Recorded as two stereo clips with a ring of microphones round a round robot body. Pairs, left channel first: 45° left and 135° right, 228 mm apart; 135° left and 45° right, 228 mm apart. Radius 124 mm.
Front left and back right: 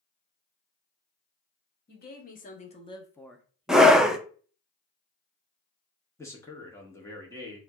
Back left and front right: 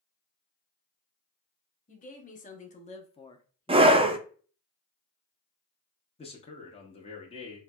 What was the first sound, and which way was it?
A woman speaking, 85° left.